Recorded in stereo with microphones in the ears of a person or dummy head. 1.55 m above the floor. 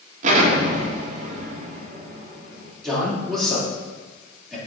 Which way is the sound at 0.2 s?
45° right (ahead or behind).